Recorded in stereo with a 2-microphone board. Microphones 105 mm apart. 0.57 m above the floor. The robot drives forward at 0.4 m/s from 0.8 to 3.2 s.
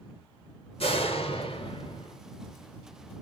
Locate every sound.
0.8 s a door slam: 65° left (ahead or behind), 1.4 m; by 2.2 s 55° left (ahead or behind), 1.5 m